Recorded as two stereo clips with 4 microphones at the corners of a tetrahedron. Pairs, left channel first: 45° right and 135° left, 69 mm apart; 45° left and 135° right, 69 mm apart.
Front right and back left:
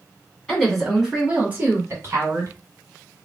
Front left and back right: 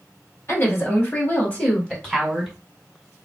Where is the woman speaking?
30° left, 1.8 m; by 2.5 s 135° left, 1.9 m.